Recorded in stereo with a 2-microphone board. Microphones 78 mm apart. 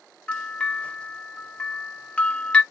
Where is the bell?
15° left (ahead or behind), 0.6 m.